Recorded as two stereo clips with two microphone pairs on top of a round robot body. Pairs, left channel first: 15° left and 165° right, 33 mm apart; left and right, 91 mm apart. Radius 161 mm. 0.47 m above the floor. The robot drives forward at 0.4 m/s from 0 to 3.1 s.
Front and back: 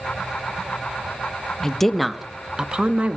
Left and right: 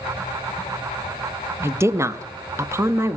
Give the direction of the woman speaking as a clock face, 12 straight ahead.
2 o'clock.